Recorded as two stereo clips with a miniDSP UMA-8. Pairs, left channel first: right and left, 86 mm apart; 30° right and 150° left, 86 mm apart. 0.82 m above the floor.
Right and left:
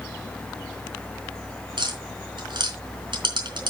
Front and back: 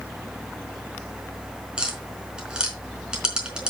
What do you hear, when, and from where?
1.8 s tapping: 70° left, 4 m